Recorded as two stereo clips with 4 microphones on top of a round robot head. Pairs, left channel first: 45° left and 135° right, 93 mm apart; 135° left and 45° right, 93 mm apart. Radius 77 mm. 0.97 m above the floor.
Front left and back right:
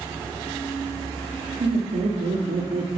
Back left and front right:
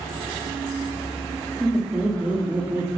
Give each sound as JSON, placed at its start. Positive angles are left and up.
{"t": 1.6, "sound": "laughter", "azimuth_deg": -135, "distance_m": 2.0}